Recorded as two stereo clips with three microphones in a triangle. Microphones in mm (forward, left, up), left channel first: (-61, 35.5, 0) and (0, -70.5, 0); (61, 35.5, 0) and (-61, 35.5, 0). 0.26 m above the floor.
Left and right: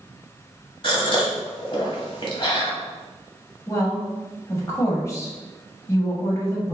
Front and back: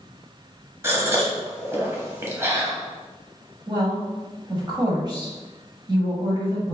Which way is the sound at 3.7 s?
165° left.